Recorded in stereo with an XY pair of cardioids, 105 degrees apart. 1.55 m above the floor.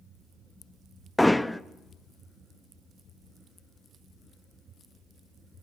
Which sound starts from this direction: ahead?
Hammering, at 1.2 s.